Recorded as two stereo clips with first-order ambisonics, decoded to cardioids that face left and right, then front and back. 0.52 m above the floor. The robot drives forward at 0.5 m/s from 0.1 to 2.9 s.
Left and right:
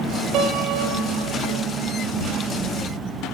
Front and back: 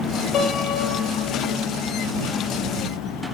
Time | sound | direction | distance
0.3 | a piano | 65° right | 7.5 m